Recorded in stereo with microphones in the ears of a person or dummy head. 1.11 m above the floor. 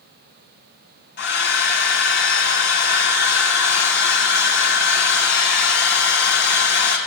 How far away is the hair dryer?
About 1.5 m.